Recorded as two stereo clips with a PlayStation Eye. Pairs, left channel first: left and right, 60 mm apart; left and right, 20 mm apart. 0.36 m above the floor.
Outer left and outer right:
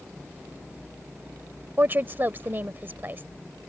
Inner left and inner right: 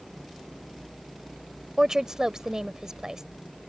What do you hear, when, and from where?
1.8 s a woman speaking: 35° right (ahead or behind)